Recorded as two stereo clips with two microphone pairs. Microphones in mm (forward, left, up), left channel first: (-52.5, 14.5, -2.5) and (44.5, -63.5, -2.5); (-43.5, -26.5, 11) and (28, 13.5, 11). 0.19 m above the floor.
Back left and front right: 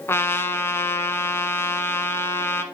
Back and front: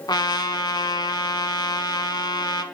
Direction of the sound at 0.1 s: 150° right.